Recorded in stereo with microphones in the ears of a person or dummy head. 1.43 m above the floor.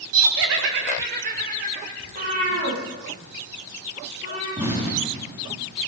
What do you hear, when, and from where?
0.1 s laughter: 75° right (ahead or behind), 1.6 m; by 1.9 s 50° right (ahead or behind), 4 m
2.0 s a cat meowing: 45° right (ahead or behind), 7.5 m
4.6 s an explosion: 15° right (ahead or behind), 4 m